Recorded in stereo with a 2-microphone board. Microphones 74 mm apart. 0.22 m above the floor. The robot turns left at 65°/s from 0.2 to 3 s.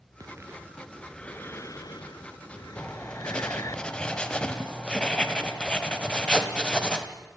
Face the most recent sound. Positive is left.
turn(degrees=15)  # may be behind; listen again after turning